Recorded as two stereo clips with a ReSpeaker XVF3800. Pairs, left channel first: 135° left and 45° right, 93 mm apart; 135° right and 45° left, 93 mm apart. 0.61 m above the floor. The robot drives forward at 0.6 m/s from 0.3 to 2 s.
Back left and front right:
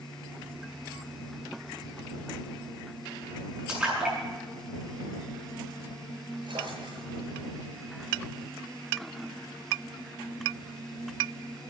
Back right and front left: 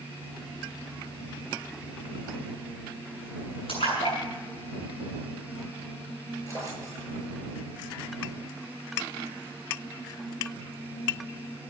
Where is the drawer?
75° right, 6 m.